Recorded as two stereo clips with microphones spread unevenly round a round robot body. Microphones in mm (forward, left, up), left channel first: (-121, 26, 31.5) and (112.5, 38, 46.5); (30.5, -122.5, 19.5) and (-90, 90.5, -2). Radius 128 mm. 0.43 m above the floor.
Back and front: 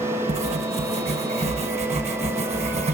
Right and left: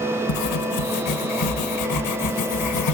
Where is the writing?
60° right, 0.9 m.